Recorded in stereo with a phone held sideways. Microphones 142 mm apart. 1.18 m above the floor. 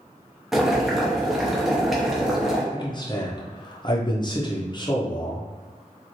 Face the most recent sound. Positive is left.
turn(degrees=30)  # may be behind; listen again after turning